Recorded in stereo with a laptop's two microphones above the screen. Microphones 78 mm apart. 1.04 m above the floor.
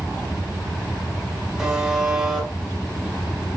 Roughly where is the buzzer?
Centre.